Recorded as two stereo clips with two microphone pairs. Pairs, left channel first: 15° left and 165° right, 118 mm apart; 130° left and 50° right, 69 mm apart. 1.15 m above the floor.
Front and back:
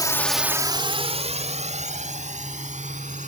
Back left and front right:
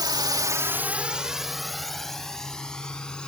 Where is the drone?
40° right; by 3.3 s 150° right.